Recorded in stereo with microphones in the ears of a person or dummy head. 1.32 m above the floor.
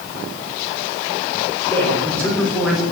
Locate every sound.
1.7 s a man speaking: 15° left (ahead or behind), 4 m; by 2.8 s centre (ahead or behind), 3 m